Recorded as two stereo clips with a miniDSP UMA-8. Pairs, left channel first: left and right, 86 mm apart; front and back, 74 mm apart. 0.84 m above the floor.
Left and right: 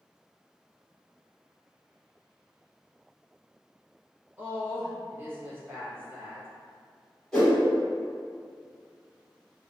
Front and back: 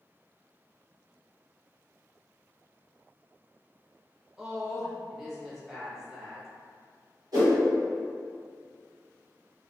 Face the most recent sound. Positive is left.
turn(degrees=170)